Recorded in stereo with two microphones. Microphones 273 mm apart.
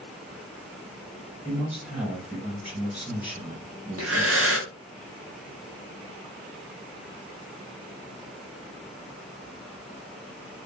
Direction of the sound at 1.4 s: 5° right (ahead or behind).